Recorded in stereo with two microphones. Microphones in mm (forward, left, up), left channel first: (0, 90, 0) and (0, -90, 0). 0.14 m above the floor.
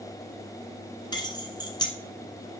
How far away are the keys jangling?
About 1.4 m.